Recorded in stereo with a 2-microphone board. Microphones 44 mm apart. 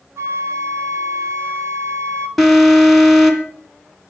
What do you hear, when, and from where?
0.2 s a flute: 65° right (ahead or behind), 1.2 m
2.4 s an alarm: centre (ahead or behind), 2.5 m